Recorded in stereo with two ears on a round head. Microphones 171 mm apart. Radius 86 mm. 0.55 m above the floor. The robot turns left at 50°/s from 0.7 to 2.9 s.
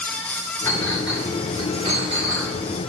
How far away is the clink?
About 3 m.